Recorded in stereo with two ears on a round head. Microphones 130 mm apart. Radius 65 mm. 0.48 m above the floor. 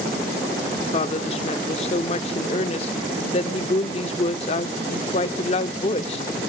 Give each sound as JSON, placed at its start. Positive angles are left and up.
{"t": 0.9, "sound": "a woman speaking", "side_deg": 40, "distance_m": 0.9}